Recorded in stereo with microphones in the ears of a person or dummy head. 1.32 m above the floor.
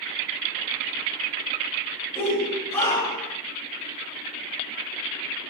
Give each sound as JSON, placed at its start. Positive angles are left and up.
{"t": 2.1, "sound": "a shout", "side_deg": 10, "distance_m": 7.0}